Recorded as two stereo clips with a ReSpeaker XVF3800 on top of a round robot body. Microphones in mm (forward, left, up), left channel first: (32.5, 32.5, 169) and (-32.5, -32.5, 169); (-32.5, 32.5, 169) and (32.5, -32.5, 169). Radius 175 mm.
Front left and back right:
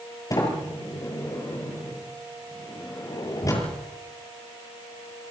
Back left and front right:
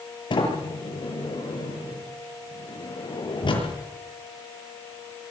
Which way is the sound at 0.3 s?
100° left.